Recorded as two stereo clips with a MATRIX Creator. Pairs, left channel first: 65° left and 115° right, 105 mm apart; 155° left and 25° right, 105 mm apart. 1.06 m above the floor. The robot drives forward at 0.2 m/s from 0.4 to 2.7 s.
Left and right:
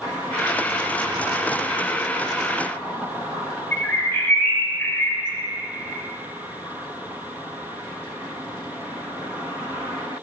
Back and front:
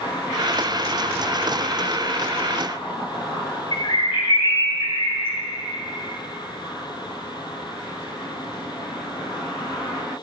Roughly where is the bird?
Behind left.